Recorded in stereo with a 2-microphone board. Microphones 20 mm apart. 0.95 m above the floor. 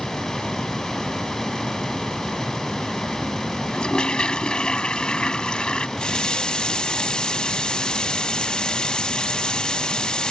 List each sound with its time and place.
3.7 s a toilet flushing: 50° left (ahead or behind)
6.0 s a running tap: 50° left (ahead or behind)